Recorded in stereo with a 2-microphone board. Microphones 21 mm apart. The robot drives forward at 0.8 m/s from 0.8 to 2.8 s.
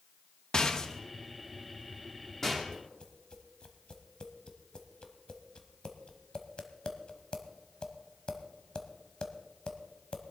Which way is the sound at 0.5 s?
30° left (ahead or behind).